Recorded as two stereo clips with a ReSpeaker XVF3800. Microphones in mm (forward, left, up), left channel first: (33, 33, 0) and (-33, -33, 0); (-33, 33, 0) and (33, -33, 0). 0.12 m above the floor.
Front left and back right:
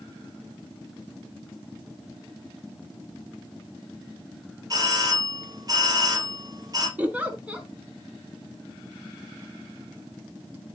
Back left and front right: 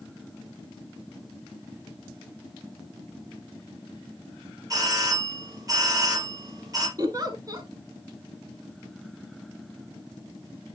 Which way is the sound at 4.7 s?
90° right.